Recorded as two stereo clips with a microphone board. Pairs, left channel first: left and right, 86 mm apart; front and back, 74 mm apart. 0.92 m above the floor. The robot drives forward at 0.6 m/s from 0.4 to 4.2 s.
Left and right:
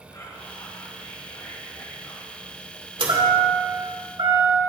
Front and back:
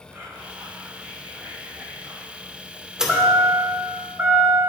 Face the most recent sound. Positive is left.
turn(degrees=-115)